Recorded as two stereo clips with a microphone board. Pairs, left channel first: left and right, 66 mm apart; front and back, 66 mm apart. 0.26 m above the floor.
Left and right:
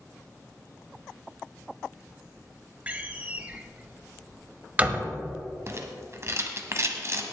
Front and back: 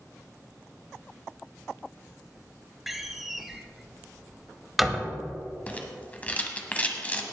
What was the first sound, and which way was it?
A door slam, 95° right.